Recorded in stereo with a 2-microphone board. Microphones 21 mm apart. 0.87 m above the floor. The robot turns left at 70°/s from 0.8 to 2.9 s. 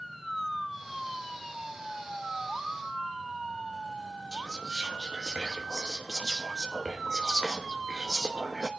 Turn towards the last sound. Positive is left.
turn(degrees=-35)  # may be behind; listen again after turning